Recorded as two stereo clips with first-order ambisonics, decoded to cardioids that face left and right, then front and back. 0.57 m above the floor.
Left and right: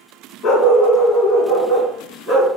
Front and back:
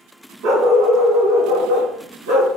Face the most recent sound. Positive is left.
turn(degrees=180)